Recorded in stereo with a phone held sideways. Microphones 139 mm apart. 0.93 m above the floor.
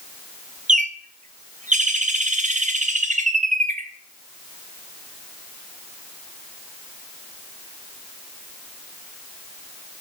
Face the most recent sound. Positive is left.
turn(degrees=-55)  # may be behind; listen again after turning